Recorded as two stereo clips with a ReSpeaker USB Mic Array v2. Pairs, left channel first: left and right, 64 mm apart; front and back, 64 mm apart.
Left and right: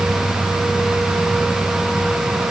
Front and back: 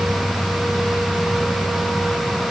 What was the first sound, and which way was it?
Only background noise.